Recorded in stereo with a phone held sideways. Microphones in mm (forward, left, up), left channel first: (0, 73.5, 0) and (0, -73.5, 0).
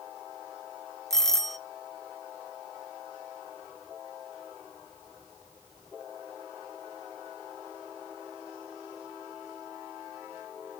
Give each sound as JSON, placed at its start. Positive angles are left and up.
{"t": 1.1, "sound": "a doorbell", "side_deg": 5, "distance_m": 0.6}